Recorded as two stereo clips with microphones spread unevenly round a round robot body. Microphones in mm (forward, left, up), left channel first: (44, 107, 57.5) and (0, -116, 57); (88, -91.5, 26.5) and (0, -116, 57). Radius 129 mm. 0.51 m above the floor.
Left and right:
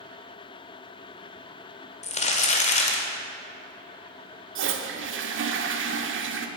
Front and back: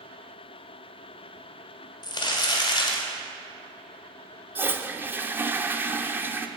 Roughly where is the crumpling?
Ahead.